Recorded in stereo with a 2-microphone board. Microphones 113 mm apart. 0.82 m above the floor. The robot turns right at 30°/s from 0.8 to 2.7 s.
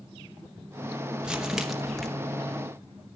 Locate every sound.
1.2 s crumpling: 5° right (ahead or behind), 0.9 m; by 2.1 s 5° left (ahead or behind), 0.9 m